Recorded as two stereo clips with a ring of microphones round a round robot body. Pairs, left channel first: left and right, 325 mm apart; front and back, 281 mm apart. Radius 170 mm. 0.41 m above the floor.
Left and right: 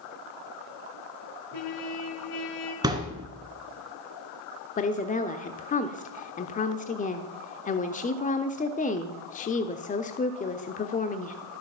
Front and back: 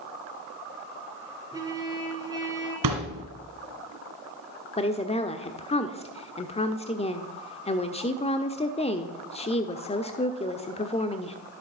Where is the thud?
170° right, 2 m.